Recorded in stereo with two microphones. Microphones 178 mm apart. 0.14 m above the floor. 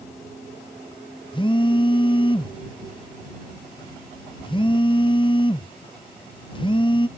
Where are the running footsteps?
No running footsteps in this recording.